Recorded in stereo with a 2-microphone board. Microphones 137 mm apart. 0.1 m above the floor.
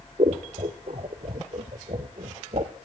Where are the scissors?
55° right (ahead or behind), 0.8 m.